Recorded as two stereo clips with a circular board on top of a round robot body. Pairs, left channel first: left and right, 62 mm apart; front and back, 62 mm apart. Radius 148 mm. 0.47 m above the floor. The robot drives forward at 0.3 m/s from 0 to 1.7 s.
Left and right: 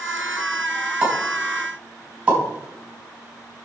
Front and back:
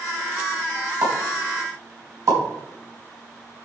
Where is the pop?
160° right, 5 m.